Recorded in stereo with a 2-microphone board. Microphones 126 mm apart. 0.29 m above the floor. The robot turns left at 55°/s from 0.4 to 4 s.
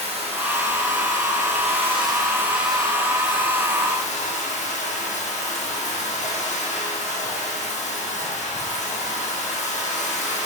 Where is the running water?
55° right, 3.5 m; by 10.5 s 110° left, 3.5 m.